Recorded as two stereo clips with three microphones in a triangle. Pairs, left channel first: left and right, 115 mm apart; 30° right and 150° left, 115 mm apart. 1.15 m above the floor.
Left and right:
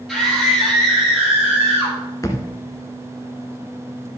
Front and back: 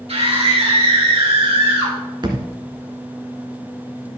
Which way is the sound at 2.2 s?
135° left.